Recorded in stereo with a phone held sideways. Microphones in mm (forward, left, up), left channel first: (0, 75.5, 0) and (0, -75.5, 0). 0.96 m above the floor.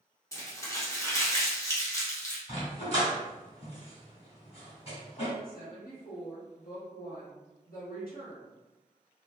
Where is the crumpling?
20° left (ahead or behind), 0.9 m.